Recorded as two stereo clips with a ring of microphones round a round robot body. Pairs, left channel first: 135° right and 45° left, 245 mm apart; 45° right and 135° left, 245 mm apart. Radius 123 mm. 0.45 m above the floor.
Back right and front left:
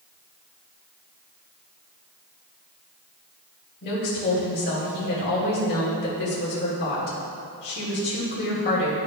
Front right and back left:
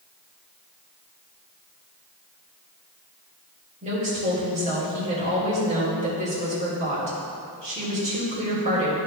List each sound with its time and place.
3.8 s a woman speaking: 170° right, 2.0 m